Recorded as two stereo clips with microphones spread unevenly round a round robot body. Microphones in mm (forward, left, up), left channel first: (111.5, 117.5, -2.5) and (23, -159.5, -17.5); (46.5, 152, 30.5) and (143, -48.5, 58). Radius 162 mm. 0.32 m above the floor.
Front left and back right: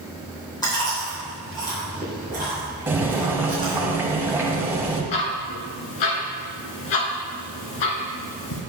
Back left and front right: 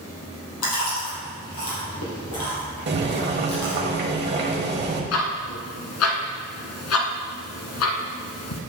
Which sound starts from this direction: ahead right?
Boiling, at 2.9 s.